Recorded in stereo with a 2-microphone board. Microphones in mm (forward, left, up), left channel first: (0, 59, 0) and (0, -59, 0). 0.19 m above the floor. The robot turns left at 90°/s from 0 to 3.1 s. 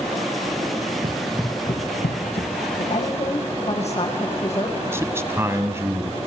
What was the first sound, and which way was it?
Running footsteps, 45° right (ahead or behind).